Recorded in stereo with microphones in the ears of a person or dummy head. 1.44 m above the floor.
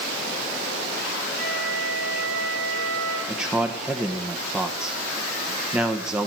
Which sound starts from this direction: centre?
A man speaking, at 3.3 s.